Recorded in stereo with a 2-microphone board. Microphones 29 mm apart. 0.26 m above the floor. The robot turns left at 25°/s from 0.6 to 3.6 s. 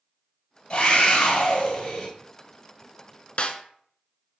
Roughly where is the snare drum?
Left.